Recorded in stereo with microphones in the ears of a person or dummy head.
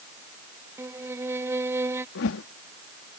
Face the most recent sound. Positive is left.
turn(degrees=70)  # may be behind; listen again after turning